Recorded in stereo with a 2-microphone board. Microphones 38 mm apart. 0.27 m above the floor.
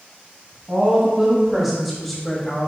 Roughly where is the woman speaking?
Centre.